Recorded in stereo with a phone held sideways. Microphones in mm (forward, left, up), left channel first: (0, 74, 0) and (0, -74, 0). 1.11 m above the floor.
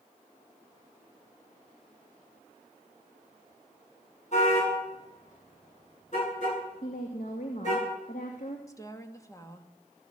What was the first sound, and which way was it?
A car horn, 55° left (ahead or behind).